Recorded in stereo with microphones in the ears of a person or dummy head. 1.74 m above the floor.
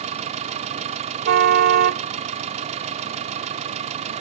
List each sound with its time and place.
0.0 s an engine running: 40° right (ahead or behind)
1.2 s a car horn: 50° right (ahead or behind)